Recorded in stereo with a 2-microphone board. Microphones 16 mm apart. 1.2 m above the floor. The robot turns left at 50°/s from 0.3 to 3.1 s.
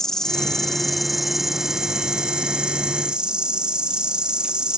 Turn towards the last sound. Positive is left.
turn(degrees=-100)